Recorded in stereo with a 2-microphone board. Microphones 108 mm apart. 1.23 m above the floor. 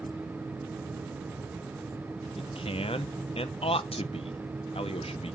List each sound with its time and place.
2.4 s a man speaking: 60° left (ahead or behind), 0.9 m